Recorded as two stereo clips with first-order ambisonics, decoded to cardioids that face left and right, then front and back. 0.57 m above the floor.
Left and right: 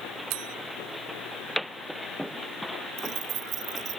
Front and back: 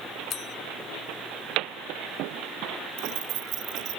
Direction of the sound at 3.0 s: 145° right.